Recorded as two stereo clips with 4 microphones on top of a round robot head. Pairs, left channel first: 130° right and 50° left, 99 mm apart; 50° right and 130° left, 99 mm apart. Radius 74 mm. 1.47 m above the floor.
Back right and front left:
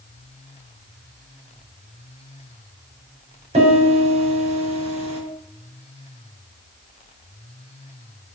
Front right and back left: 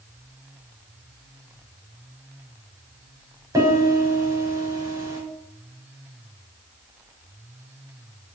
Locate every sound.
3.5 s a piano: 70° left, 5.5 m